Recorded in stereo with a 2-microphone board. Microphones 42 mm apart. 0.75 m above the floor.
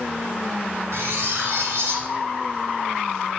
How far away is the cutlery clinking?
About 0.6 m.